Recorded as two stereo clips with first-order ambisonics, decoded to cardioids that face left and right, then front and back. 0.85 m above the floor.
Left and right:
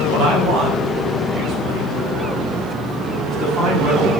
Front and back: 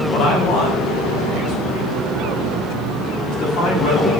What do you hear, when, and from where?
0.1 s a man speaking: 45° right, 4 m; by 4.1 s 20° right, 5.5 m